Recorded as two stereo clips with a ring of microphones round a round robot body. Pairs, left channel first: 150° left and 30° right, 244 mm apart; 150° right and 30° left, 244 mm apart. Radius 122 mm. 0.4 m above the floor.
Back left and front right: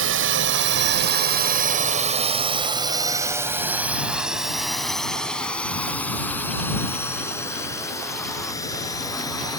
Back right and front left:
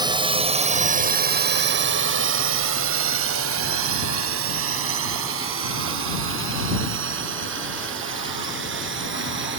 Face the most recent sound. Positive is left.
turn(degrees=75)